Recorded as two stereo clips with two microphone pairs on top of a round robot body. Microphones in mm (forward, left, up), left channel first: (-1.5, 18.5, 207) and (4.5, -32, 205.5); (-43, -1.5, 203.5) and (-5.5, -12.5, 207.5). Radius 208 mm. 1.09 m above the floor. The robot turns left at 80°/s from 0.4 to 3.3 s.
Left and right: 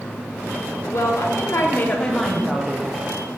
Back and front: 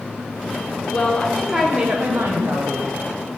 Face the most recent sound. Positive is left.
turn(degrees=-70)